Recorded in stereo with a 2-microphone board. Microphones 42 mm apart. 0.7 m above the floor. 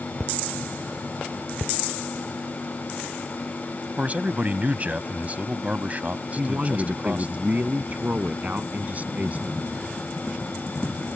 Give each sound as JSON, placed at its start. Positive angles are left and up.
{"t": 4.0, "sound": "a man speaking", "side_deg": -35}
{"t": 6.4, "sound": "a man speaking", "side_deg": -35}